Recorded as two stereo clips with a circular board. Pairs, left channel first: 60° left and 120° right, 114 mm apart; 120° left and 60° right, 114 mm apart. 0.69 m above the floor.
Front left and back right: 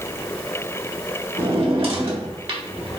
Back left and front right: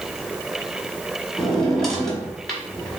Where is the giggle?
I don't hear a giggle.